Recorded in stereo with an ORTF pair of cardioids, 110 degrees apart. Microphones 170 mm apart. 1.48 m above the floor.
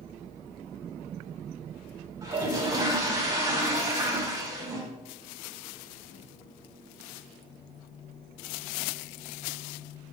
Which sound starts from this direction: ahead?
A toilet flushing, at 2.2 s.